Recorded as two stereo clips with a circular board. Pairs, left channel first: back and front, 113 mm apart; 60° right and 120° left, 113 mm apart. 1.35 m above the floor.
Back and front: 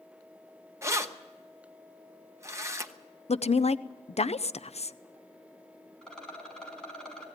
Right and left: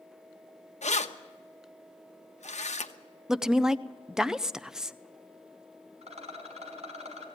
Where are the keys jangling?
65° right, 1.0 m.